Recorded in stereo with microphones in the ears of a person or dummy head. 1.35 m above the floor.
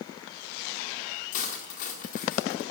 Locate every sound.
1.3 s cutlery clinking: 55° left (ahead or behind), 1.8 m